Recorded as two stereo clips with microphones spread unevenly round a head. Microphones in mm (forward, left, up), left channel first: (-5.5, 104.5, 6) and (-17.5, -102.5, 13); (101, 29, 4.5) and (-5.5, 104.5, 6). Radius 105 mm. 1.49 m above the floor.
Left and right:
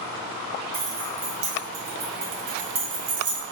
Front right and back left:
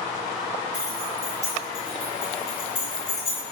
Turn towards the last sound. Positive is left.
turn(degrees=-90)